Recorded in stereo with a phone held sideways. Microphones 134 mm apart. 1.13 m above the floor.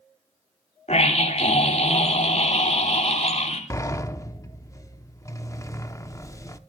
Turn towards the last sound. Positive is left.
turn(degrees=25)  # may be behind; listen again after turning